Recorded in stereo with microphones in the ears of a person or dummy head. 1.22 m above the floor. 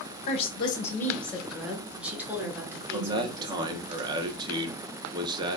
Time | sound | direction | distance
0.3 | a woman speaking | 40° left (ahead or behind) | 0.8 m
2.9 | a man speaking | 25° right (ahead or behind) | 0.6 m